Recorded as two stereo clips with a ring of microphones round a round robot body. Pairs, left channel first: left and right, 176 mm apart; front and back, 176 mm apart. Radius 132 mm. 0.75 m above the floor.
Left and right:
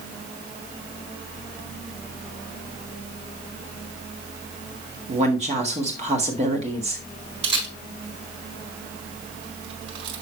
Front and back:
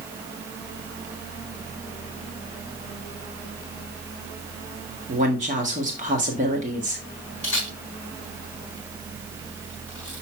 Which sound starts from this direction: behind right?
A woman speaking, at 5.1 s.